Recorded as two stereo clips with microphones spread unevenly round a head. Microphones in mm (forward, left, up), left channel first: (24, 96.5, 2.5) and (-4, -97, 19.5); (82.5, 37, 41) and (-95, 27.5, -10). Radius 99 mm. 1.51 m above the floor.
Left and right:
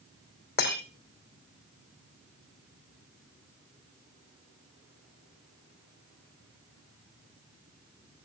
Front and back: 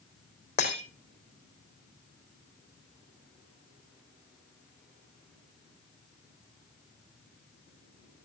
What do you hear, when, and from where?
0.6 s breaking glass: 40° left, 3.5 m